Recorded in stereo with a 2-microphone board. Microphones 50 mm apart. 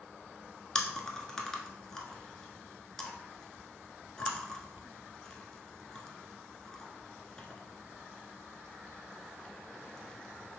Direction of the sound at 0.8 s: 15° left (ahead or behind).